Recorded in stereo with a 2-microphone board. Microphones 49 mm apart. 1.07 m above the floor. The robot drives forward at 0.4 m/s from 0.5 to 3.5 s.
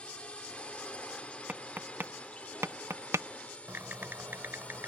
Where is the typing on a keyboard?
45° right (ahead or behind).